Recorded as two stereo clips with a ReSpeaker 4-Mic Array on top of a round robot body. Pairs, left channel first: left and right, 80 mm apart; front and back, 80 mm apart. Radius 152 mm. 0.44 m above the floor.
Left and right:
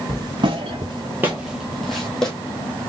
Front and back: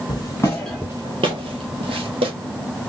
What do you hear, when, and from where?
0.1 s footsteps: 45° right, 0.7 m; by 2.3 s 175° left, 1.3 m